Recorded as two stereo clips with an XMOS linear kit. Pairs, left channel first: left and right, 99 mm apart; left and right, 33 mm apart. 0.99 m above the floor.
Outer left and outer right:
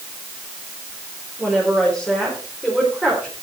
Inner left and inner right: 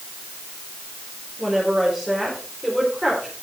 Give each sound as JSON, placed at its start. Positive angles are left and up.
{"t": 1.4, "sound": "a woman speaking", "side_deg": 0, "distance_m": 4.0}